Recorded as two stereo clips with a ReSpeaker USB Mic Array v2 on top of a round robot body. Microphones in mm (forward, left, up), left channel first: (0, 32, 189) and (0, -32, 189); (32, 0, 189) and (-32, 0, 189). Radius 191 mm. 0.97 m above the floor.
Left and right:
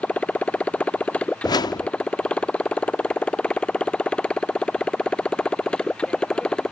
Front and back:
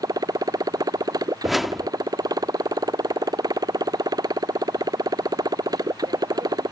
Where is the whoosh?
90° left.